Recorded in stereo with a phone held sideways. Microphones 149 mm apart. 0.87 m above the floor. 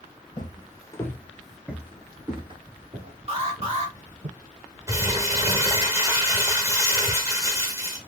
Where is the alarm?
40° right (ahead or behind), 1.7 m.